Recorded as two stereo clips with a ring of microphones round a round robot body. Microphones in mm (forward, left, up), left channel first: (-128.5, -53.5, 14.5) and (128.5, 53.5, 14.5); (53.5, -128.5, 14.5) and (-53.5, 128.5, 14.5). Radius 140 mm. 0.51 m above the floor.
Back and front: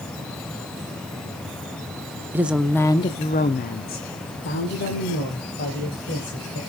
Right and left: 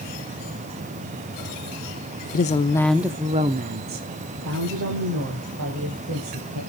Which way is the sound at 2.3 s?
55° right.